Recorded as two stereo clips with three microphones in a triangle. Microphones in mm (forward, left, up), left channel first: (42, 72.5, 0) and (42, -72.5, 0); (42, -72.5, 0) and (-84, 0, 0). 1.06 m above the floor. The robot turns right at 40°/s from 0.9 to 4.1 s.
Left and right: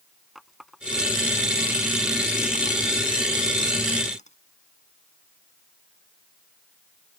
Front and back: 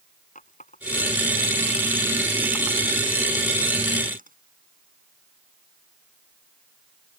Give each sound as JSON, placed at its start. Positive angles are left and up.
{"t": 0.3, "sound": "a running tap", "azimuth_deg": 0}